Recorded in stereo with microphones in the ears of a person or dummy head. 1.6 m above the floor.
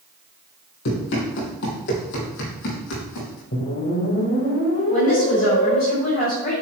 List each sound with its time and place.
0.8 s running footsteps: 60° left (ahead or behind), 3 m; by 3.4 s 70° left (ahead or behind), 4.5 m
3.5 s a whoosh: 55° left (ahead or behind), 2.5 m
4.9 s a woman speaking: 45° left (ahead or behind), 4 m